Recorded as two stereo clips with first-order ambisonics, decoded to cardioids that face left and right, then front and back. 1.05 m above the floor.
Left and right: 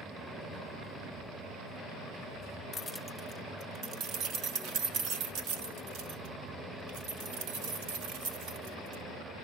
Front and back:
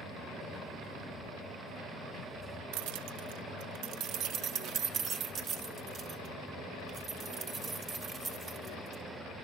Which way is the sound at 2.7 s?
160° left.